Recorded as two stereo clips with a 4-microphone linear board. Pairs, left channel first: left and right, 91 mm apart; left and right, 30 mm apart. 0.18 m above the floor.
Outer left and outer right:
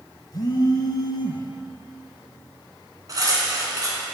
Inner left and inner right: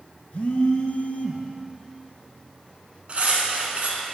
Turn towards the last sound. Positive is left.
turn(degrees=-45)  # may be behind; listen again after turning